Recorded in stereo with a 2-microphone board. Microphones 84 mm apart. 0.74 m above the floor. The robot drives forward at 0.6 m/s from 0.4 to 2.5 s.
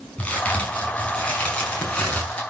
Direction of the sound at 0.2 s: 20° left (ahead or behind).